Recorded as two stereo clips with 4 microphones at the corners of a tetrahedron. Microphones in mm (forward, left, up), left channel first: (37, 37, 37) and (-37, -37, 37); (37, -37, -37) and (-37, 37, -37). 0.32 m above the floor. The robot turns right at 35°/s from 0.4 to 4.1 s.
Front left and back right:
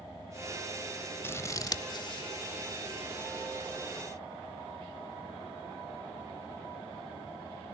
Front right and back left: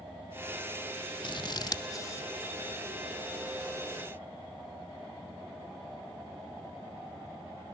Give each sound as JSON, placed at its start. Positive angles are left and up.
{"t": 1.2, "sound": "scissors", "azimuth_deg": -20, "distance_m": 0.7}